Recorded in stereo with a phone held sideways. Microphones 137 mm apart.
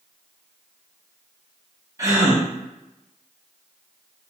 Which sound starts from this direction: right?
A gasp, at 2.0 s.